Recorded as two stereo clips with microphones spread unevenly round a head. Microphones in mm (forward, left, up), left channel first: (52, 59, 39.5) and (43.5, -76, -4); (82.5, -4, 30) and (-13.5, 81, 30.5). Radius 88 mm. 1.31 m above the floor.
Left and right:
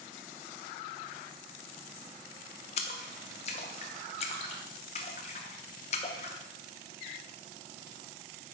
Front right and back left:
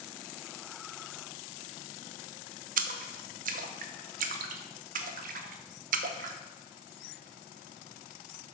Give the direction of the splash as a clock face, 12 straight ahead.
8 o'clock.